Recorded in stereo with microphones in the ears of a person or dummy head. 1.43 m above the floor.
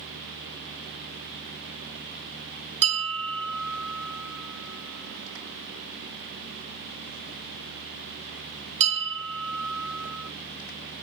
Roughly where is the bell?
Right.